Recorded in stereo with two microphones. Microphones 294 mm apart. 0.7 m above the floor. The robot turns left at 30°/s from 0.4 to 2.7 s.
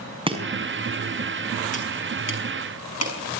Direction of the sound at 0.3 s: 15° right (ahead or behind).